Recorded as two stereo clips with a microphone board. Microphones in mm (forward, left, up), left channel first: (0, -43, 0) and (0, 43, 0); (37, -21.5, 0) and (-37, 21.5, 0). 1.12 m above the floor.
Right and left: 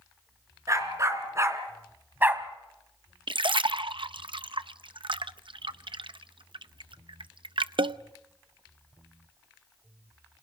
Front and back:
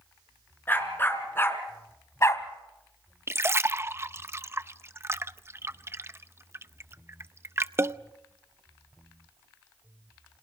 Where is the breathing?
No breathing in this recording.